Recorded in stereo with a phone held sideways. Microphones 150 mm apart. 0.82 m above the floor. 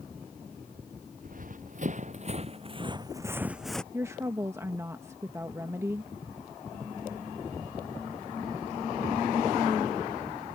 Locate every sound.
1.2 s running footsteps: 60° right (ahead or behind); by 3.8 s 5° left (ahead or behind)
3.9 s a woman speaking: 15° right (ahead or behind)